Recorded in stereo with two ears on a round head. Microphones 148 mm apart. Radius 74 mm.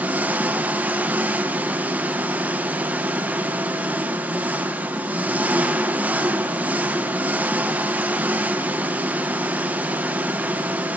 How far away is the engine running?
About 0.9 m.